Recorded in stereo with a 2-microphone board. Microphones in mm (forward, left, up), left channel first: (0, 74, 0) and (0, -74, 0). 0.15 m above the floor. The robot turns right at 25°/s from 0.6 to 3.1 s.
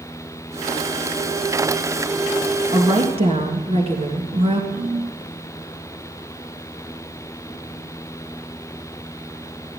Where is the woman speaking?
35° right (ahead or behind), 2 m; by 4.6 s 40° right (ahead or behind), 2 m.